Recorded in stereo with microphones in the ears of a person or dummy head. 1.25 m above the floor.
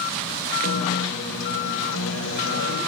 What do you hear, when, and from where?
0.6 s a guitar: 85° left, 5 m